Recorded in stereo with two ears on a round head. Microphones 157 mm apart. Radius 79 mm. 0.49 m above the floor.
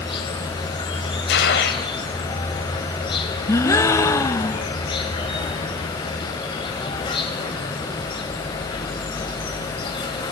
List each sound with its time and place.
0.0 s an insect: 30° left (ahead or behind), 4 m
1.3 s a gunshot: 70° left (ahead or behind), 2.5 m
3.5 s a gasp: 15° left (ahead or behind), 0.7 m